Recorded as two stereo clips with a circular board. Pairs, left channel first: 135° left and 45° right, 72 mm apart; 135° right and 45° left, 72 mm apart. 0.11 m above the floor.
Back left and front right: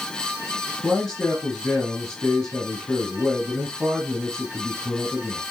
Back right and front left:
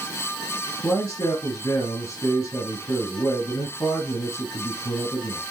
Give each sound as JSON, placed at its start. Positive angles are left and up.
{"t": 0.8, "sound": "a man speaking", "azimuth_deg": -145, "distance_m": 2.5}